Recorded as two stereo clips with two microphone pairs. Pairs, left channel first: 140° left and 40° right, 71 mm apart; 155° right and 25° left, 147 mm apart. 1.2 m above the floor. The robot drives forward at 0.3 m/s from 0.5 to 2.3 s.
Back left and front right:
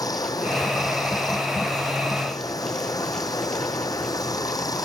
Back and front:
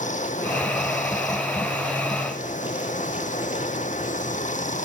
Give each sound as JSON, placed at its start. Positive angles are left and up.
{"t": 0.0, "sound": "running water", "azimuth_deg": 170}